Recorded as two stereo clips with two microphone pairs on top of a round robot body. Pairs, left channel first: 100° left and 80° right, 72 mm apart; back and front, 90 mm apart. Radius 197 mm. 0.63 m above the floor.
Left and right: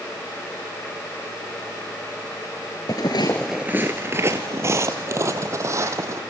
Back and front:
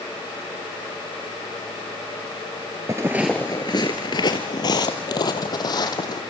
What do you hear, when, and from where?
2.9 s footsteps: 50° left, 0.7 m; by 6.2 s 130° right, 2 m